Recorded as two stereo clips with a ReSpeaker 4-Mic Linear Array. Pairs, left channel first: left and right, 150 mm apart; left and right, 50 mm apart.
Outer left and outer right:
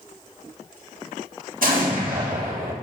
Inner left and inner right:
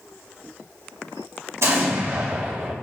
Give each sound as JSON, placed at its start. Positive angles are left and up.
{"t": 1.6, "sound": "an explosion", "side_deg": -70, "distance_m": 2.0}